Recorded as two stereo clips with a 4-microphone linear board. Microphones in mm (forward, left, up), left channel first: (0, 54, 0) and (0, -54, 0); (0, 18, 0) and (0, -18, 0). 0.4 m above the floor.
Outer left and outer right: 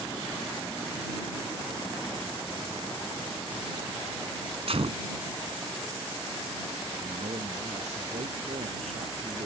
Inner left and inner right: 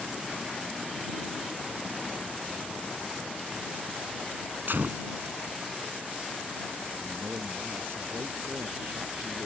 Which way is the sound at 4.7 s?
60° right (ahead or behind).